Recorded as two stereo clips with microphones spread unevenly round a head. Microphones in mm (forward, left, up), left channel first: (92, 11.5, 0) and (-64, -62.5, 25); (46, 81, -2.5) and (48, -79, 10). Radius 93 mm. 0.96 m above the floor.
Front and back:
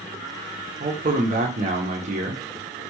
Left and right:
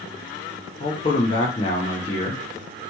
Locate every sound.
0.8 s a man speaking: 150° left, 0.8 m